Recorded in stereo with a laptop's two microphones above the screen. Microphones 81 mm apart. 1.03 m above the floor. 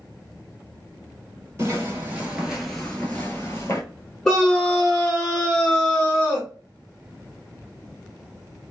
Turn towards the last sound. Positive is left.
turn(degrees=5)  # may be behind; listen again after turning